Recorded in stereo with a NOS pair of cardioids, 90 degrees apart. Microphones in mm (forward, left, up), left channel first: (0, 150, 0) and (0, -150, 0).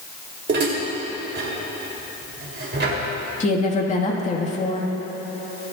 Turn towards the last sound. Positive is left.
turn(degrees=25)